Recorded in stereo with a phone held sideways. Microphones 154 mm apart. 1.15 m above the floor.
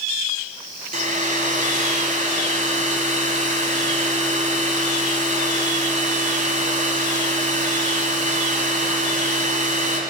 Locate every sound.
0.9 s a hair dryer: 55° right (ahead or behind), 1.8 m